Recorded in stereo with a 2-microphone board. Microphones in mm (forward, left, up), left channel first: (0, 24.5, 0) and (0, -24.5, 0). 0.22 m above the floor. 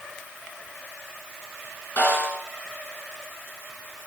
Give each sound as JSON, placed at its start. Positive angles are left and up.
{"t": 2.0, "sound": "a snare drum", "side_deg": 50, "distance_m": 3.0}